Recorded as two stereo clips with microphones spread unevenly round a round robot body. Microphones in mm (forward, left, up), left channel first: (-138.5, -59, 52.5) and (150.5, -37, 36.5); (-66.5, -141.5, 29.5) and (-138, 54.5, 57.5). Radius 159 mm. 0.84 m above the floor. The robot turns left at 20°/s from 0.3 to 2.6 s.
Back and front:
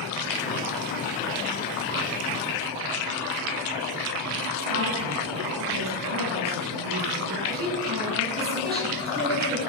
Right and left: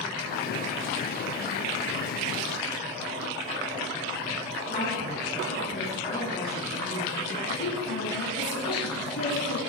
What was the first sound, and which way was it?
A woman speaking, 10° right.